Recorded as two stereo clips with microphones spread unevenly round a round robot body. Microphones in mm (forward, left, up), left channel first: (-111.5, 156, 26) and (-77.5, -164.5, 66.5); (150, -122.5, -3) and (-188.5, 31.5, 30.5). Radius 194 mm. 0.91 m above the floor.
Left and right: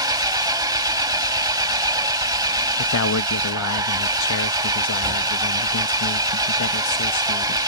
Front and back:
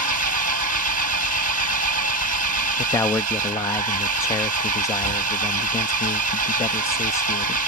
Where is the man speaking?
55° left.